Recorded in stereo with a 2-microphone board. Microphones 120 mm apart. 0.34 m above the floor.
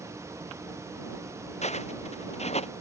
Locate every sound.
1.6 s footsteps: 70° left (ahead or behind); by 2.7 s 65° left (ahead or behind)